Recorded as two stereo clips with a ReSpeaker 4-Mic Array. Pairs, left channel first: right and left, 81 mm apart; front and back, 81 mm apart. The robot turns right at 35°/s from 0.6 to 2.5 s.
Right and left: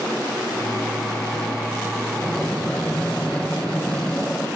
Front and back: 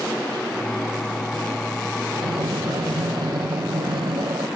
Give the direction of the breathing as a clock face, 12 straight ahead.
6 o'clock.